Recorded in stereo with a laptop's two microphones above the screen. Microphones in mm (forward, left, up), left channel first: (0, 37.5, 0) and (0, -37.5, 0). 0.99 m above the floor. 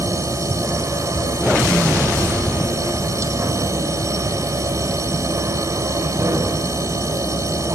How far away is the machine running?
About 4 m.